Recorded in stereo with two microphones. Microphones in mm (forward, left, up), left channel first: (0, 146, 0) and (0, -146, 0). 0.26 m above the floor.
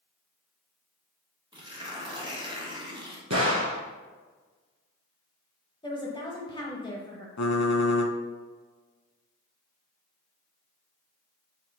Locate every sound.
1.5 s tearing paper: 15° right (ahead or behind), 1.2 m
3.3 s a gunshot: 70° right (ahead or behind), 0.9 m
5.8 s a woman speaking: 15° left (ahead or behind), 0.9 m
7.4 s typing on a keyboard: 70° left (ahead or behind), 0.6 m